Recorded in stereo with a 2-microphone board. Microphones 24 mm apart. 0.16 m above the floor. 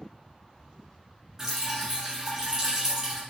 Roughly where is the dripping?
Centre.